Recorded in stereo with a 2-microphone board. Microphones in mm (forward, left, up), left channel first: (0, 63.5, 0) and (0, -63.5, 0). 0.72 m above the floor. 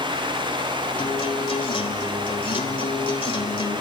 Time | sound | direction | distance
1.0 | a guitar | 45° left (ahead or behind) | 1.8 m